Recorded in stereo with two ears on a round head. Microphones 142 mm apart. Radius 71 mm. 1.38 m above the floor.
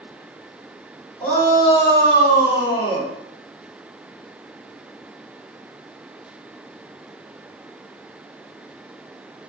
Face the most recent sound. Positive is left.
turn(degrees=40)  # may be behind; listen again after turning